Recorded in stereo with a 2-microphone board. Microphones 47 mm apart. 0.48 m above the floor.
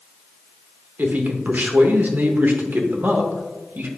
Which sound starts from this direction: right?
A man speaking, at 1.0 s.